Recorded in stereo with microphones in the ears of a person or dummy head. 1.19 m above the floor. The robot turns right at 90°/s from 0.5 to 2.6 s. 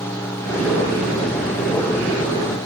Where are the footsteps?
No footsteps in this recording.